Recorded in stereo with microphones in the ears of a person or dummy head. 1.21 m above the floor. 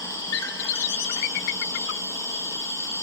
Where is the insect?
20° left (ahead or behind), 2.5 m.